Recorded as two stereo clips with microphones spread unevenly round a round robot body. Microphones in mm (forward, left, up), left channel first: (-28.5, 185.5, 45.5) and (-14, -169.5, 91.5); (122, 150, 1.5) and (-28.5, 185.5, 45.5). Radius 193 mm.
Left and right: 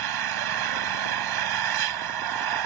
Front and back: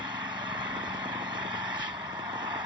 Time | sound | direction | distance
0.0 | an engine running | 115° right | ?